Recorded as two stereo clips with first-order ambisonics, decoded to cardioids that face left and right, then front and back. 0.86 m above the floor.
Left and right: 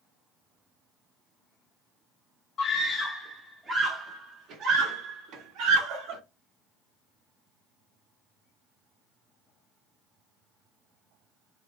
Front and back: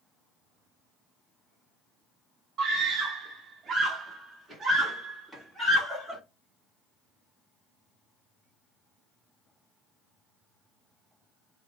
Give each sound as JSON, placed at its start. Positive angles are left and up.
{"t": 2.6, "sound": "a scream", "azimuth_deg": 135, "distance_m": 0.9}